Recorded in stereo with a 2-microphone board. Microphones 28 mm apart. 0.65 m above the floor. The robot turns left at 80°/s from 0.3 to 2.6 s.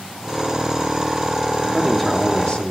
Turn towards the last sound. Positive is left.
turn(degrees=115)